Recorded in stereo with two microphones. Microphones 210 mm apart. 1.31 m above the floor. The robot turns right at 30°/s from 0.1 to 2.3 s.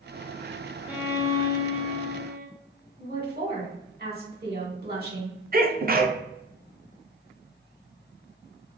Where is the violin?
175° right, 0.7 m; by 2.5 s 130° right, 0.7 m.